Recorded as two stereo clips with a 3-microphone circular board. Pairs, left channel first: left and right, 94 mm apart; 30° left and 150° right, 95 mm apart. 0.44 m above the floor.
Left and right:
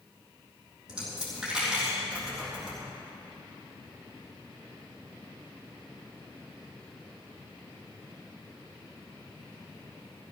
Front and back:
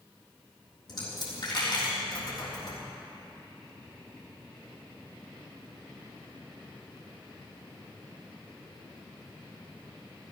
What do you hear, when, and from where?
0.9 s a dropped coin: 5° right, 3.5 m